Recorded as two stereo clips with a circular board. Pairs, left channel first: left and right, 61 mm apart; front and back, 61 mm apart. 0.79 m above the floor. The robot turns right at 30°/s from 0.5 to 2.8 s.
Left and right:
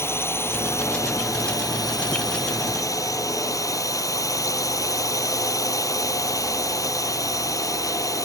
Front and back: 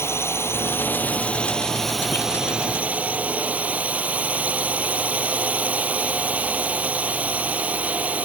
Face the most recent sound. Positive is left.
turn(degrees=115)